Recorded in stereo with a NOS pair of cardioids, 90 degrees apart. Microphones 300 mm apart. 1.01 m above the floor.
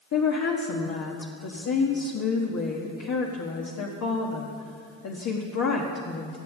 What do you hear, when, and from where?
0.1 s a woman speaking: 60° left, 1.4 m